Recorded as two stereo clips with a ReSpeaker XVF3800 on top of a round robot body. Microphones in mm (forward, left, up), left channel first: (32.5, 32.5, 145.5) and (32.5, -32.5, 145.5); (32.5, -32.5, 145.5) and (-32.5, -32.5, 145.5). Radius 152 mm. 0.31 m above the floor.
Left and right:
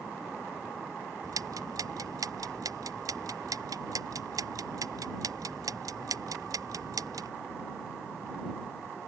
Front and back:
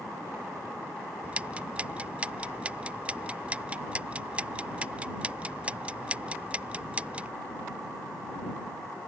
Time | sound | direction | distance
1.2 | ticking | 110° right | ?